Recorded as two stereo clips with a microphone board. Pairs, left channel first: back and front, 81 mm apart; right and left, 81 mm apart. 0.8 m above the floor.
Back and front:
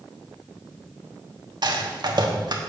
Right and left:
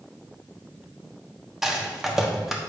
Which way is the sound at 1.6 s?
5° left.